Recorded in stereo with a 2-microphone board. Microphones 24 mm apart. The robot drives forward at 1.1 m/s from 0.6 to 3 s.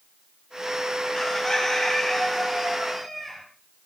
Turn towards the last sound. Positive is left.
turn(degrees=10)  # may be behind; listen again after turning